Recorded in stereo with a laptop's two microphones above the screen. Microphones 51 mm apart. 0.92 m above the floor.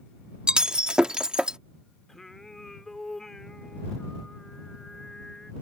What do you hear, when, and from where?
0.5 s breaking glass: 15° right (ahead or behind)
2.1 s singing: 10° left (ahead or behind)